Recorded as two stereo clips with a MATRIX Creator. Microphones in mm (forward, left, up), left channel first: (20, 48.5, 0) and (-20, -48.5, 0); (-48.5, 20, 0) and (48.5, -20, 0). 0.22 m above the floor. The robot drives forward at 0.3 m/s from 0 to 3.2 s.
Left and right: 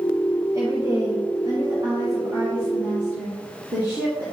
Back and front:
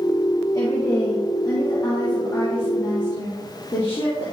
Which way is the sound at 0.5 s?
155° right.